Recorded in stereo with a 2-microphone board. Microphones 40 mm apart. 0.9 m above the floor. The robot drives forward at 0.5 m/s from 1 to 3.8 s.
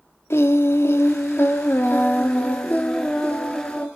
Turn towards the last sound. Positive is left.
turn(degrees=35)  # may be behind; listen again after turning